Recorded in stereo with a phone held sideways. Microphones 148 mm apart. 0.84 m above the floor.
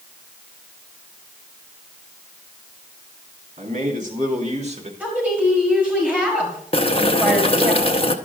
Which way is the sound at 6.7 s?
40° left (ahead or behind).